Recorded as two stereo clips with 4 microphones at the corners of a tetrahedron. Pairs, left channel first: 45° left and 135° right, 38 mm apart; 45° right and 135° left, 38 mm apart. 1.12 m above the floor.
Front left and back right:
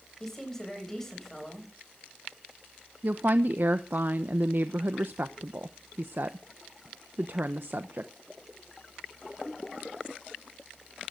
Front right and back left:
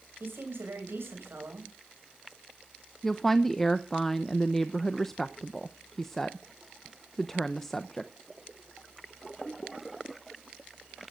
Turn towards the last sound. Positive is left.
turn(degrees=-125)